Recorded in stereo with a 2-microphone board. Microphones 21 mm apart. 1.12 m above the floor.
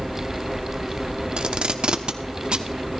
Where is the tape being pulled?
50° right (ahead or behind), 0.8 m.